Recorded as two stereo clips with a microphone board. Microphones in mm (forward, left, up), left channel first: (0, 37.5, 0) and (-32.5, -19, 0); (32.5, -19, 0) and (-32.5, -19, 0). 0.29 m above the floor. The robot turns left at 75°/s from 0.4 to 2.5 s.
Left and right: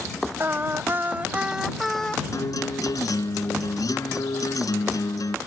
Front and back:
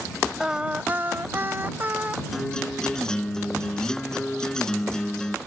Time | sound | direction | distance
0.4 | singing | 105° right | ?
2.3 | a guitar | 95° left | ?